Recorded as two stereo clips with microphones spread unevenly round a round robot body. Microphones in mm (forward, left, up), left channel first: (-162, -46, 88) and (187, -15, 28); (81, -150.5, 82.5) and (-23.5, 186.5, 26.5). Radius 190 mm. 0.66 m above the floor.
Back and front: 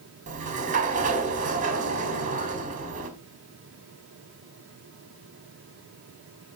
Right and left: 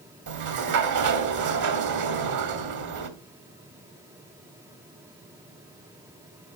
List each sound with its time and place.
0.3 s a sliding door: 70° left, 1.5 m